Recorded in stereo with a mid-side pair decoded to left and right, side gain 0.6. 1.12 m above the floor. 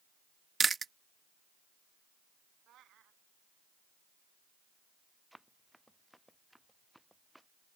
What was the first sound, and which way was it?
Chewing, 25° right.